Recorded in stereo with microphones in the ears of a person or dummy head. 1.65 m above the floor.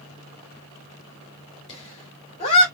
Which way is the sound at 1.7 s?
30° left (ahead or behind).